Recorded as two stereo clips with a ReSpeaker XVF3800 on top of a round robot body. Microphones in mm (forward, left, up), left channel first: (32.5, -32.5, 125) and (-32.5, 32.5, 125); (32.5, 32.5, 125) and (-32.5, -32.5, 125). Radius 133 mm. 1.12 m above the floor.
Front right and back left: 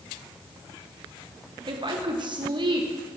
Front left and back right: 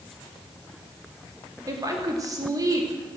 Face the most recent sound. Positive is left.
turn(degrees=170)